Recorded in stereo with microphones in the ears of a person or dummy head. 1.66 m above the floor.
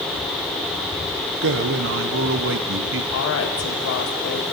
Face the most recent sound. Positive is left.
turn(degrees=75)  # may be behind; listen again after turning